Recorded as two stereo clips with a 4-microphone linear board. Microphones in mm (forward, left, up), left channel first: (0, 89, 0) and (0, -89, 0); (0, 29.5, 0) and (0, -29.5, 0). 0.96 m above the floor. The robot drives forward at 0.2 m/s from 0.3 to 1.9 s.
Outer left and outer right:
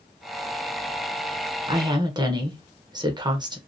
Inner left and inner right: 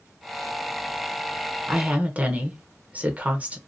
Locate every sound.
1.7 s a woman speaking: 25° right (ahead or behind), 0.7 m